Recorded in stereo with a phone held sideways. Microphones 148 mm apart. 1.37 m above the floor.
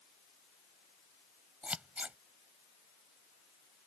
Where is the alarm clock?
No alarm clock in this recording.